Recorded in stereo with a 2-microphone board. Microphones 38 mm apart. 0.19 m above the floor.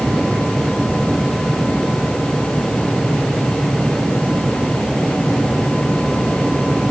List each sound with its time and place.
Only background noise.